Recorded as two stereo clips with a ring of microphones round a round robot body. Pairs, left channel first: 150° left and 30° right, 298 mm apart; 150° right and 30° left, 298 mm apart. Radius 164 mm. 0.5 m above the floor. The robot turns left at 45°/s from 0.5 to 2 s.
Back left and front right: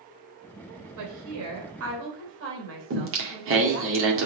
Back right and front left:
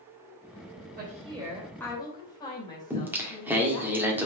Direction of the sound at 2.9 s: 50° right.